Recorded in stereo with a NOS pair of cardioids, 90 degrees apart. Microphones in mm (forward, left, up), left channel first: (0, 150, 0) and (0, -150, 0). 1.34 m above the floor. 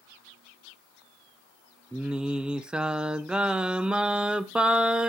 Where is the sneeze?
No sneeze in this recording.